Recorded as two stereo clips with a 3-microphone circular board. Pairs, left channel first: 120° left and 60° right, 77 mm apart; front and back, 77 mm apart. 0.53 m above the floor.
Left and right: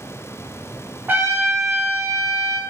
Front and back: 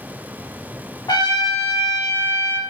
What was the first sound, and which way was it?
A trumpet, straight ahead.